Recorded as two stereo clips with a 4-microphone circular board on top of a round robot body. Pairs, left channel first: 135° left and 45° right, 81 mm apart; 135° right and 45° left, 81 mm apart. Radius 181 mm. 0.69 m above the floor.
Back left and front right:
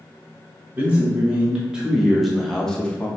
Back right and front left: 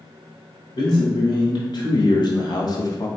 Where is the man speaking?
110° right, 1.8 m; by 3.1 s 160° right, 1.0 m.